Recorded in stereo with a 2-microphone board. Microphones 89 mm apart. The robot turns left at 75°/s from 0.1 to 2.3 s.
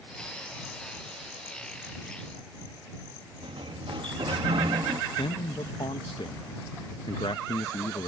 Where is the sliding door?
85° right.